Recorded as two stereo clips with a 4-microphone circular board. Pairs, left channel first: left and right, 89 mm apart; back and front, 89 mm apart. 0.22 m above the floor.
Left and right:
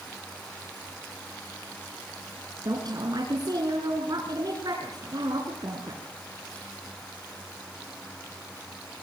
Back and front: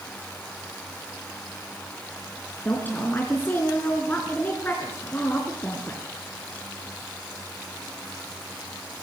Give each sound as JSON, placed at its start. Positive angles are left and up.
{"t": 2.6, "sound": "a woman speaking", "azimuth_deg": -115, "distance_m": 3.5}